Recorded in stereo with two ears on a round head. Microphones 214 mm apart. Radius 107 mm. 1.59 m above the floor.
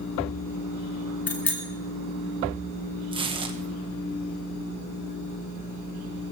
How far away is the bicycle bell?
About 2.5 m.